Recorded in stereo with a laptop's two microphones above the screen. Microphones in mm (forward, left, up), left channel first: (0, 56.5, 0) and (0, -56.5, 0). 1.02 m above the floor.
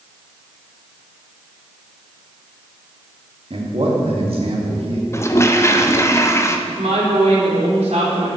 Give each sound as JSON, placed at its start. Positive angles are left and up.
{"t": 3.5, "sound": "a man speaking", "side_deg": -55, "distance_m": 1.6}
{"t": 5.1, "sound": "a toilet flushing", "side_deg": 25, "distance_m": 0.7}
{"t": 6.7, "sound": "a woman speaking", "side_deg": -75, "distance_m": 3.0}